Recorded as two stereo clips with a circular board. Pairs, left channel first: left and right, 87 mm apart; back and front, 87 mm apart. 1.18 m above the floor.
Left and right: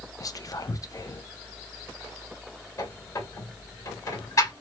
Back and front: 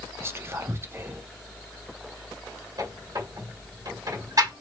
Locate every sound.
0.2 s whispering: 55° left, 0.6 m
2.8 s a squeak: 40° left, 1.9 m